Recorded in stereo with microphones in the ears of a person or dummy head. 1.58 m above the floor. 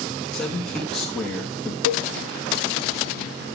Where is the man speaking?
Centre (ahead or behind), 2 m.